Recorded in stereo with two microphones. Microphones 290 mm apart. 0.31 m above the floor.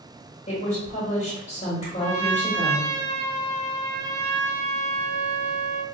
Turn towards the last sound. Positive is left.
turn(degrees=-80)